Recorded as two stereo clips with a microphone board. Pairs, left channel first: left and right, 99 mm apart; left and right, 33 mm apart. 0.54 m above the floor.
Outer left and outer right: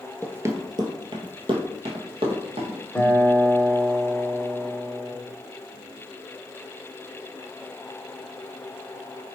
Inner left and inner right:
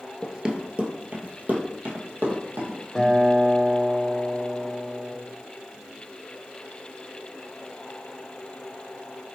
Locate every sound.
0.2 s running footsteps: 15° right (ahead or behind), 0.6 m; by 2.8 s 70° right (ahead or behind), 1.6 m
3.0 s a guitar: 10° left (ahead or behind), 0.8 m